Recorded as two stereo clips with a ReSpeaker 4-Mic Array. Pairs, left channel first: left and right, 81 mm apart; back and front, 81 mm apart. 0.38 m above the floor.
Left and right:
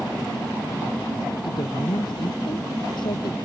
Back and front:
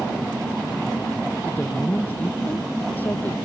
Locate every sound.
1.4 s a woman speaking: 110° left